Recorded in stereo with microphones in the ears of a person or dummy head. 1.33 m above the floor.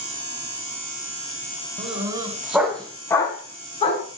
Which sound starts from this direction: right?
A dog barking, at 1.8 s.